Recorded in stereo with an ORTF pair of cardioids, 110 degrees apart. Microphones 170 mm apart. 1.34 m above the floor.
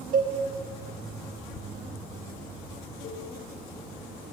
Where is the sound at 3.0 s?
65° left, 1.6 m.